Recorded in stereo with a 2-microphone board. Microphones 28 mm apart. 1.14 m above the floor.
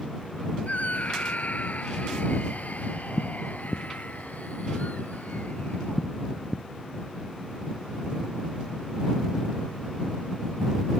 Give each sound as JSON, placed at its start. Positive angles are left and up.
{"t": 0.7, "sound": "a scream", "side_deg": 65}